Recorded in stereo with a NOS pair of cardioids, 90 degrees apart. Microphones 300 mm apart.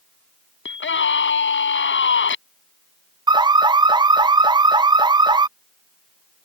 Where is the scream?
40° left.